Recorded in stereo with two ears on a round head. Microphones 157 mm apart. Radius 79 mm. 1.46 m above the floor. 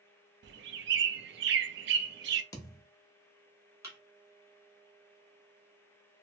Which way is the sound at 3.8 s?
15° right (ahead or behind).